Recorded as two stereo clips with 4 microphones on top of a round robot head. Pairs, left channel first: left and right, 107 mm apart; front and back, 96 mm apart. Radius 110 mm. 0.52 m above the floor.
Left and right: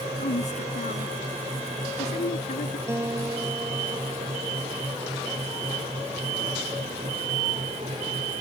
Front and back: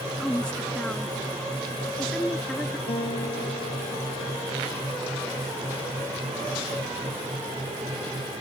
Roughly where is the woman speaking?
Left.